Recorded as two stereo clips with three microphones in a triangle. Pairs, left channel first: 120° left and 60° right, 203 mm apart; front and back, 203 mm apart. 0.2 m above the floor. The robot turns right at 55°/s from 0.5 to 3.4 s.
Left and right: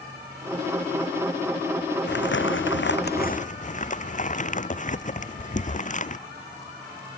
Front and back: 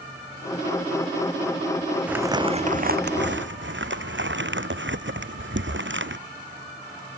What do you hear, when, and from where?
2.1 s crumpling: 95° left; by 6.2 s 170° left